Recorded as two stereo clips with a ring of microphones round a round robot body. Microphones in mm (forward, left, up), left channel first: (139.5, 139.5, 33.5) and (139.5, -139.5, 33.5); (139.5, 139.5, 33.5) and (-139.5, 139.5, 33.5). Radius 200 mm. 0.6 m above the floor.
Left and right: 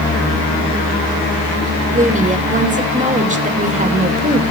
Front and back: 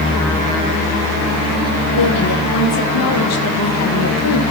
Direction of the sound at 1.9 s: 30° right.